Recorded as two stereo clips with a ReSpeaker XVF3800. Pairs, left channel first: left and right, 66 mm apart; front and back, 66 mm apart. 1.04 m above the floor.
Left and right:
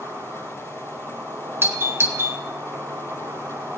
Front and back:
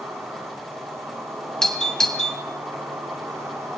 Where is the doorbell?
75° right, 1.6 m.